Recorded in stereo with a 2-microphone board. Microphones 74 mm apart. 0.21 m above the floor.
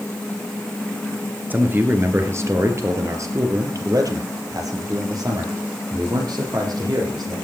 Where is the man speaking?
25° right (ahead or behind), 2.5 m; by 7.3 s 65° right (ahead or behind), 7 m.